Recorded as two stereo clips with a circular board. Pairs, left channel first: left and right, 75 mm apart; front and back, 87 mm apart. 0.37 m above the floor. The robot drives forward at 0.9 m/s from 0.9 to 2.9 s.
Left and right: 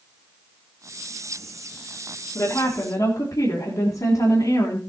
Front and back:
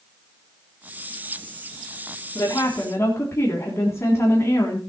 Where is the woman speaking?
50° left, 3.5 m; by 4.8 s 55° left, 3 m.